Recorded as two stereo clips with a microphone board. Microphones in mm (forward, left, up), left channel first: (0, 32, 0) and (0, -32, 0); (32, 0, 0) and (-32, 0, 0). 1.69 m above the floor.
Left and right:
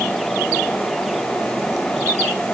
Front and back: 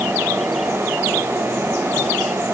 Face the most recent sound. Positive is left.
No sound to turn to.